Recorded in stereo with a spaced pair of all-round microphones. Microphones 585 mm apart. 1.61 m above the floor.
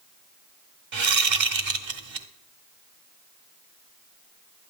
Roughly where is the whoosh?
Right.